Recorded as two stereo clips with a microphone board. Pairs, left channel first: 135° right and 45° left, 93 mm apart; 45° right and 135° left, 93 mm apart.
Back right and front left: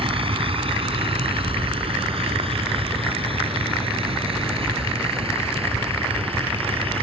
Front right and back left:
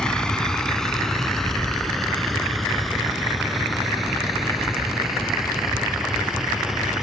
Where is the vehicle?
35° left; by 7.0 s 50° left.